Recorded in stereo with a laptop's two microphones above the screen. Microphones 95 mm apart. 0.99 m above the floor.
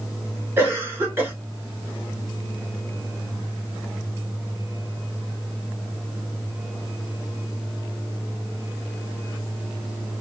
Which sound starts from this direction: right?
A cough, at 0.6 s.